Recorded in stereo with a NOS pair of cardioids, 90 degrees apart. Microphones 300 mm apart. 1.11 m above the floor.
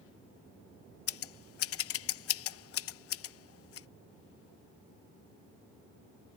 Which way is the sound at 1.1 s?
50° left.